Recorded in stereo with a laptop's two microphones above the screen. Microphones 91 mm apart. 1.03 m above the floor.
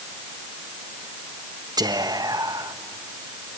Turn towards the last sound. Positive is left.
turn(degrees=-50)  # may be behind; listen again after turning